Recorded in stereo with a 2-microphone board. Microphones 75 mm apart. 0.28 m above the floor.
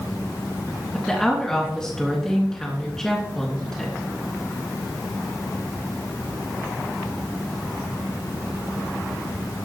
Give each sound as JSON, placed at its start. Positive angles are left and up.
{"t": 0.9, "sound": "a woman speaking", "side_deg": 5, "distance_m": 2.5}